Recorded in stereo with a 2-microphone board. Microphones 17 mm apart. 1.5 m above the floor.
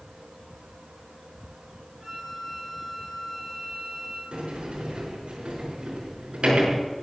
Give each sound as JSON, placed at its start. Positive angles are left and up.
{"t": 2.0, "sound": "a flute", "side_deg": -25, "distance_m": 6.0}
{"t": 4.3, "sound": "a sliding door", "side_deg": -75, "distance_m": 6.0}